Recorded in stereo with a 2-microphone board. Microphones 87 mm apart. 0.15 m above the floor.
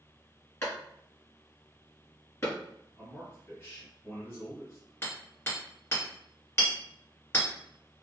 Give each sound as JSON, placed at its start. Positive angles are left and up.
{"t": 0.6, "sound": "a clap", "side_deg": 30, "distance_m": 1.5}
{"t": 3.0, "sound": "a man speaking", "side_deg": 30, "distance_m": 1.3}
{"t": 5.0, "sound": "hammering", "side_deg": 25, "distance_m": 2.0}